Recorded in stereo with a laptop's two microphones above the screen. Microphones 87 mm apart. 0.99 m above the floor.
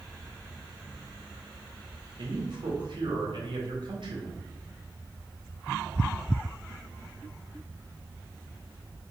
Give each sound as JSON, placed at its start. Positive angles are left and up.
{"t": 2.2, "sound": "a man speaking", "side_deg": -65, "distance_m": 1.0}